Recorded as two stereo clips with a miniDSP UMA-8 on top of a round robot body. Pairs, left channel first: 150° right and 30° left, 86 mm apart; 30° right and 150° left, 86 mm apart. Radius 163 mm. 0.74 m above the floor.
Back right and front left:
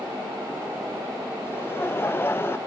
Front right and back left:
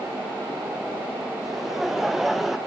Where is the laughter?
125° right, 1.1 m.